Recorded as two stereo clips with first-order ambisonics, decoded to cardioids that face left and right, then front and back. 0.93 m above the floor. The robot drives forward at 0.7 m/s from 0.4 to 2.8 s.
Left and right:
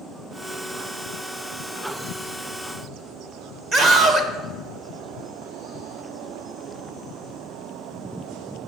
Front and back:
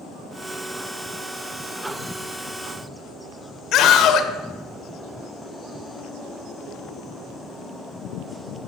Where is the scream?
30° right, 0.8 m.